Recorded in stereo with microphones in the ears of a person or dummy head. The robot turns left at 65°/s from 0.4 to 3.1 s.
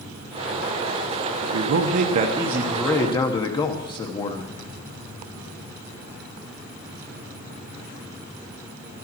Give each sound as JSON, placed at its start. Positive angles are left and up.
{"t": 1.4, "sound": "a man speaking", "azimuth_deg": -90, "distance_m": 0.9}